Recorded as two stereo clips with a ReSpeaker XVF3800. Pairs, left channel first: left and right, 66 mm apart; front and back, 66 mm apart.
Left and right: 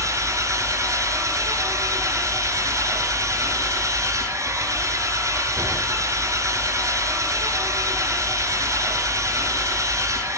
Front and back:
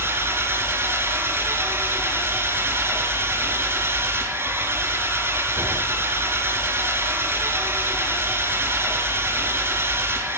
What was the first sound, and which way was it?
An engine running, 125° right.